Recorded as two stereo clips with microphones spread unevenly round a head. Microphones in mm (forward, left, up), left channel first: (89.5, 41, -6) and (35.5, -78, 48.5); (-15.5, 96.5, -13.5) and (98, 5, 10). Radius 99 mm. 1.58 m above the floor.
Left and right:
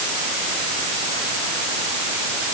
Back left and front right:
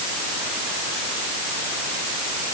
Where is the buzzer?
No buzzer in this recording.